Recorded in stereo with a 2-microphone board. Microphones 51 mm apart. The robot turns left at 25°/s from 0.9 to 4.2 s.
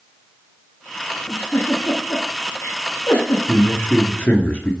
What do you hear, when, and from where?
1.3 s a giggle: 35° left (ahead or behind), 4.5 m; by 3.4 s 85° left, 4.5 m
3.5 s a man speaking: 40° left (ahead or behind), 2 m; by 4.7 s 35° left (ahead or behind), 2 m